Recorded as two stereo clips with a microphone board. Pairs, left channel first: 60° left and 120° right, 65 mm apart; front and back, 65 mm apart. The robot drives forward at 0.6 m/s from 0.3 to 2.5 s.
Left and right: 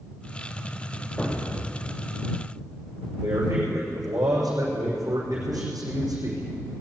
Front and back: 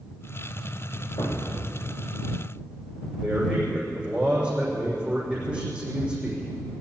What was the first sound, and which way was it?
A thud, 15° right.